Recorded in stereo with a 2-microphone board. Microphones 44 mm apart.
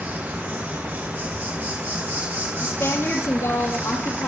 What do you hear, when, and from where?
0.0 s an insect: 55° right (ahead or behind), 9 m
2.6 s a woman speaking: 75° left (ahead or behind), 5.5 m